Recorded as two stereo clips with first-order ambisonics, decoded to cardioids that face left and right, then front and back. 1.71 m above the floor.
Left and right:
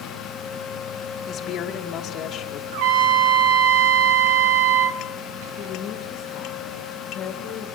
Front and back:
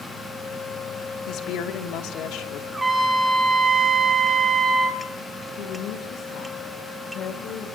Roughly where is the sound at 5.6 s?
Ahead left.